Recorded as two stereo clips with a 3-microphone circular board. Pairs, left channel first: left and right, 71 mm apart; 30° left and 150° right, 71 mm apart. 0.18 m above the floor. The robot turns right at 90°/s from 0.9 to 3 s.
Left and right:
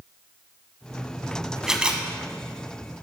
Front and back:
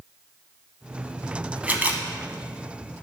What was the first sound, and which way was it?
A camera shutter, 160° right.